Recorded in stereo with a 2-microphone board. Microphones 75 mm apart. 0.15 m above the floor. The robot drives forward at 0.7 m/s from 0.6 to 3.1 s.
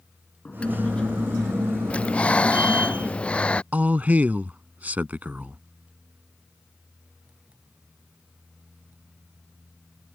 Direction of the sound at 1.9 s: 15° left (ahead or behind).